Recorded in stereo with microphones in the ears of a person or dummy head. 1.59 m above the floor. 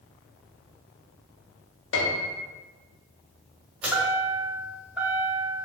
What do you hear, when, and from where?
1.9 s a piano: 80° left, 0.9 m
3.8 s a chime: centre (ahead or behind), 1.4 m